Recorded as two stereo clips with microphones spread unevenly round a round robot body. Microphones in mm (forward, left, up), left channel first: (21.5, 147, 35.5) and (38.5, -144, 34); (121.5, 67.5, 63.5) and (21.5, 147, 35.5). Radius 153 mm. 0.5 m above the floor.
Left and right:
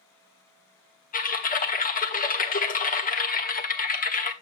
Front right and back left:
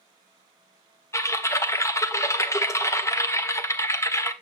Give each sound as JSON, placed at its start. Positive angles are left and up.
{"t": 1.1, "sound": "typing on a keyboard", "azimuth_deg": 35, "distance_m": 1.6}